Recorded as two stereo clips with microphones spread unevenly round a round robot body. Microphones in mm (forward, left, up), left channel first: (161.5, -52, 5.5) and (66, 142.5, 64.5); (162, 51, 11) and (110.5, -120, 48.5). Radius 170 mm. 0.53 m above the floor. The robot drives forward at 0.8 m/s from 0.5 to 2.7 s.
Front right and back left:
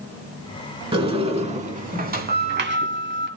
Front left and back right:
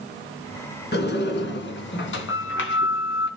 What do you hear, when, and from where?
0.9 s a sliding door: 50° left, 3 m; by 3.3 s 80° left, 2 m